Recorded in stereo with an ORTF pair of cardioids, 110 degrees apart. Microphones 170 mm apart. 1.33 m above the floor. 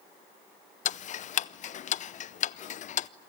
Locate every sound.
0.8 s ticking: 45° left, 0.7 m